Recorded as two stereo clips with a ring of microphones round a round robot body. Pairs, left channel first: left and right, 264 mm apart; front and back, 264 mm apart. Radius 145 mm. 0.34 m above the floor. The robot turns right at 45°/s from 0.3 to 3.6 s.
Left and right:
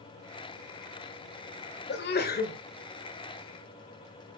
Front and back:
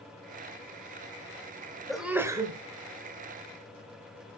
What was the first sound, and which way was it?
A sneeze, 90° left.